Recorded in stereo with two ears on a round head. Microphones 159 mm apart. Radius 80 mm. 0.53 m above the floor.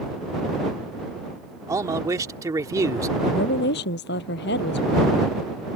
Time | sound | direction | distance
1.7 | a man speaking | 20° right (ahead or behind) | ?
3.2 | a woman speaking | 70° left (ahead or behind) | ?